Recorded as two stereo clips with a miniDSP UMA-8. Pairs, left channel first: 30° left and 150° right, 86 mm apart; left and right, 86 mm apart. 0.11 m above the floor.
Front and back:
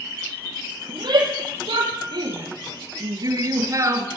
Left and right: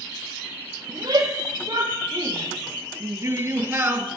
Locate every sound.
0.9 s a shout: 130° right, 4.5 m; by 4.1 s 140° right, 2.0 m